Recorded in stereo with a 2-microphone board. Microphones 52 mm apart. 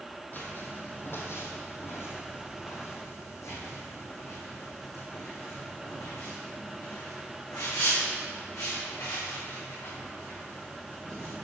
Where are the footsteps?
40° left (ahead or behind), 1.9 m; by 11.3 s 75° left (ahead or behind), 6.5 m.